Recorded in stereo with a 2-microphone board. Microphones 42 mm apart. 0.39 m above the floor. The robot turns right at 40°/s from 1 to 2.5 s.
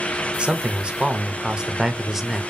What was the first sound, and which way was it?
A man speaking, 25° right (ahead or behind).